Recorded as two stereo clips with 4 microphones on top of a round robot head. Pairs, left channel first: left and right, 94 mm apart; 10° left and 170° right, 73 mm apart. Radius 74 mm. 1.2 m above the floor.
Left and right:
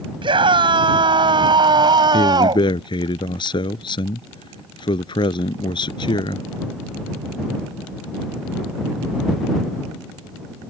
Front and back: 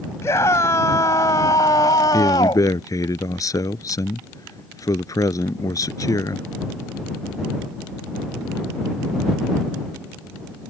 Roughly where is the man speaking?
Ahead left.